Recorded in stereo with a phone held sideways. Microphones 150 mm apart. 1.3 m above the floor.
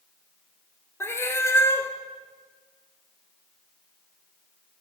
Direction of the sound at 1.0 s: 15° left (ahead or behind).